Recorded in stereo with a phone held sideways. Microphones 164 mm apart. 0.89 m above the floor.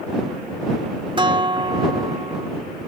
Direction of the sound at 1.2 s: 30° right (ahead or behind).